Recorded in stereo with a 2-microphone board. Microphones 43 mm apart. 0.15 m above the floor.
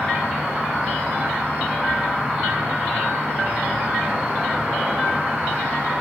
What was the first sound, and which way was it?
An insect, 20° right (ahead or behind).